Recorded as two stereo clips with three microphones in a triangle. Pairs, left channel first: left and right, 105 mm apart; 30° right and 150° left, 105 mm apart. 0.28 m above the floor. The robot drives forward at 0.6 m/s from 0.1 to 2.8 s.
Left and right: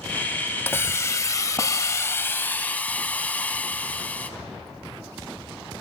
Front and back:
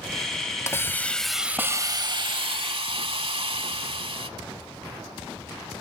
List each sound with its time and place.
0.7 s a hiss: 25° left, 0.7 m; by 4.3 s 165° left, 0.9 m